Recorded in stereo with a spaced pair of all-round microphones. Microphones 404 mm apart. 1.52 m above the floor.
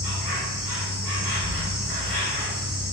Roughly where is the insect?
Left.